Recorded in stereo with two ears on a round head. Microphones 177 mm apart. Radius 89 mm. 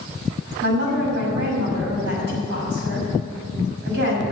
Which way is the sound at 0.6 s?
70° right (ahead or behind).